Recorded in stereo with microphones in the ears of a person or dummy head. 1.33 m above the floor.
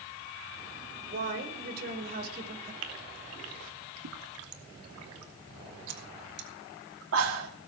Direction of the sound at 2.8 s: 85° right.